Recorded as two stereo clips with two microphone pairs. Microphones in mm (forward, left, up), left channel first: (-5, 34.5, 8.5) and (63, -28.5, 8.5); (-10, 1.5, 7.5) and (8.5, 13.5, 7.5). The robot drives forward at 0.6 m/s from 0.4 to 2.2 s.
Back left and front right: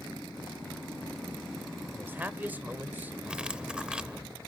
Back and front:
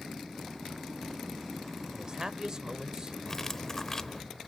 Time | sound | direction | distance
1.9 | a man speaking | 5° left | 1.0 m
3.2 | cutlery clinking | 110° right | 0.6 m